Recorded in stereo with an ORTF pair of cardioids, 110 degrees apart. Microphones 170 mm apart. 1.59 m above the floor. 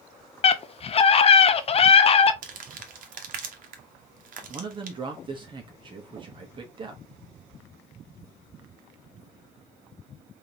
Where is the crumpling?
50° right, 1.2 m.